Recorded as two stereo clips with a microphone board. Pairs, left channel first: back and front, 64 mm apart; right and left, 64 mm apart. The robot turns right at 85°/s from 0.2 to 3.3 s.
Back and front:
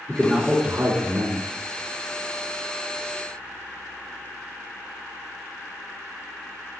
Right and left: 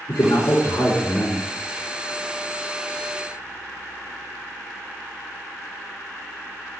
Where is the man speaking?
100° right, 3.5 m; by 1.4 s 10° left, 3.5 m.